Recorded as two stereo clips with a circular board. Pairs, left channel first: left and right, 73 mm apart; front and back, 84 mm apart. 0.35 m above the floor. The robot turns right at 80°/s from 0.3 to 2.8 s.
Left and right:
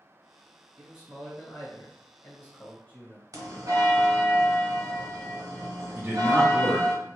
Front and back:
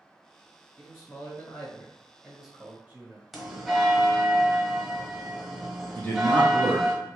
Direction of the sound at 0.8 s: 30° right.